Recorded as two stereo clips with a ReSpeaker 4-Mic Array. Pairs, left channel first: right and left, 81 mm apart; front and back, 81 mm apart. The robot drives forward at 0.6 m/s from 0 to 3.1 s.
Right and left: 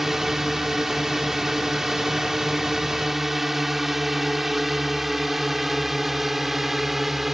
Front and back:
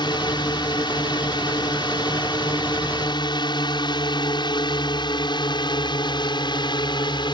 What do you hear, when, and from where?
0.0 s a drone: straight ahead